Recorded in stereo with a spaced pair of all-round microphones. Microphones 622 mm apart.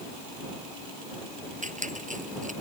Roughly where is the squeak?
Centre.